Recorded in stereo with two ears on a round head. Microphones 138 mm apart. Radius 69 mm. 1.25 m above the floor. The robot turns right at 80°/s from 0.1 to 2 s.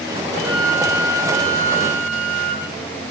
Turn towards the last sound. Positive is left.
turn(degrees=110)